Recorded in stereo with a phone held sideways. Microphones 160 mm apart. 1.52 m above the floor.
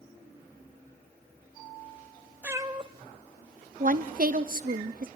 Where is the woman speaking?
60° right (ahead or behind), 0.7 m.